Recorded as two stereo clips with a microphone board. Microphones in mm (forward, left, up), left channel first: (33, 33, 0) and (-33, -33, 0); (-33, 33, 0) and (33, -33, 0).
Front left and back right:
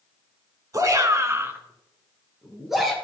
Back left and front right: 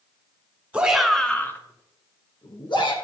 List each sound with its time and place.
0.7 s a shout: 115° right, 2.0 m; by 2.9 s 135° left, 3 m